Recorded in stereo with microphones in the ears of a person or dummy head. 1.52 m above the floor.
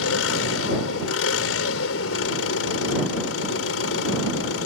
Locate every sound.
0.0 s an engine running: 90° left